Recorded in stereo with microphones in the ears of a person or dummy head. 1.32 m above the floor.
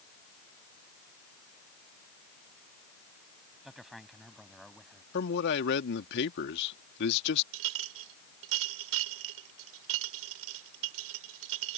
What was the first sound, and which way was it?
A man speaking, 5° right (ahead or behind).